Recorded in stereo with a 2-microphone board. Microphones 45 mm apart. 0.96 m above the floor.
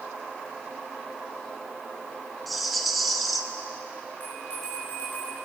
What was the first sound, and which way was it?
A rattle, centre (ahead or behind).